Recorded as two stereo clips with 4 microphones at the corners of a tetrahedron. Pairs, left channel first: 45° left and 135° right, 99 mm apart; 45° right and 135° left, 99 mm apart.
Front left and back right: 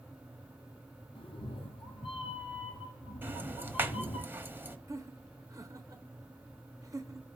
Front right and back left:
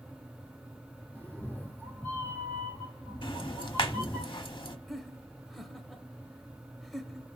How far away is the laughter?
About 0.9 m.